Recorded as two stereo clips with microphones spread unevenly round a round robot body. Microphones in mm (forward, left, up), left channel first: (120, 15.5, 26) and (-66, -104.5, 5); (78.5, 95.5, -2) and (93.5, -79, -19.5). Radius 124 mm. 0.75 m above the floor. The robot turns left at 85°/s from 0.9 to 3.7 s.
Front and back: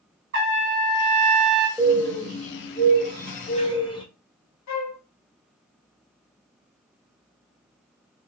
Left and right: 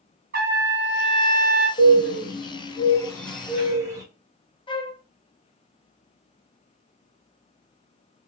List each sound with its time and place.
0.3 s a trumpet: 125° right, 2 m; by 1.7 s 170° left, 2 m
1.8 s a bird: 135° left, 1.0 m; by 4.0 s 30° right, 1.0 m
4.7 s a flute: 30° left, 0.6 m